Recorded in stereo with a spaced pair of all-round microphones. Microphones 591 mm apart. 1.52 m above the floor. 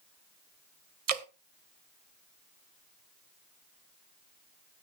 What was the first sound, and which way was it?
Dripping, 80° right.